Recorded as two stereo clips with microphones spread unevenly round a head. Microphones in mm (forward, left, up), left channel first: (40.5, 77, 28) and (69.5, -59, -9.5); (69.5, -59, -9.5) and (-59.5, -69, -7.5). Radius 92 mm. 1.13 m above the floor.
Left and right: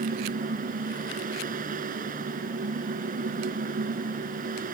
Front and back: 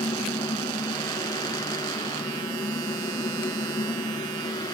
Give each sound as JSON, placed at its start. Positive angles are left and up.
{"t": 0.0, "sound": "a fan", "azimuth_deg": -55}